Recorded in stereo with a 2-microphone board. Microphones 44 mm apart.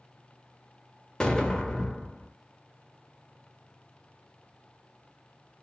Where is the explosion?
15° left (ahead or behind), 0.6 m.